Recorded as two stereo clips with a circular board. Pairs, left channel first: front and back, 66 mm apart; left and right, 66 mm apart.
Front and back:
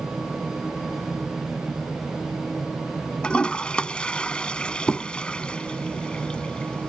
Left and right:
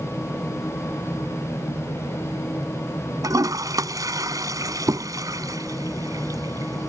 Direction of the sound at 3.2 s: 75° right.